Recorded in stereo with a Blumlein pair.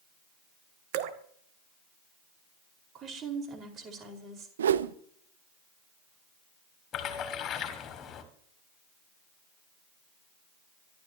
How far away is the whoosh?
About 0.8 m.